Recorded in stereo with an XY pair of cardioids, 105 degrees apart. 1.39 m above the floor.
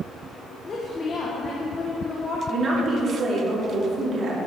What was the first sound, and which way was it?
A woman speaking, 35° left.